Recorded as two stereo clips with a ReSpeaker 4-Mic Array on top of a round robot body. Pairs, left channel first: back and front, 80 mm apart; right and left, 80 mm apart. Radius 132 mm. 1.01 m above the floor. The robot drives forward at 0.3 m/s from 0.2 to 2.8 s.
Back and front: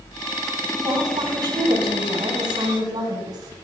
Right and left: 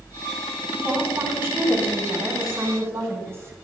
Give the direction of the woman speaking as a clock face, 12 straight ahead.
11 o'clock.